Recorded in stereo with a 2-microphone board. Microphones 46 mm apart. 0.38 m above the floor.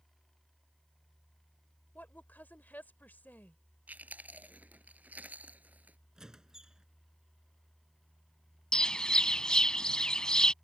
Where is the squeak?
15° right (ahead or behind).